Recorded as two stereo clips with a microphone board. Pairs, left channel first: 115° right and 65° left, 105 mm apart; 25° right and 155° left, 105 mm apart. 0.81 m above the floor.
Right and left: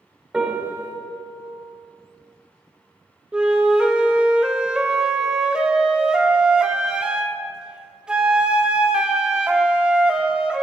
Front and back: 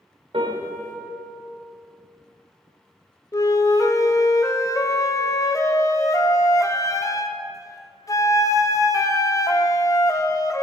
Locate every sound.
0.3 s a piano: 145° left, 1.7 m
3.3 s a flute: 10° right, 0.6 m